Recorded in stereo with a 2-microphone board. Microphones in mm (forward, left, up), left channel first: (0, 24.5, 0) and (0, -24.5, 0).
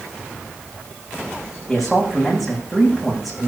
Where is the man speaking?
5° right (ahead or behind), 8 m.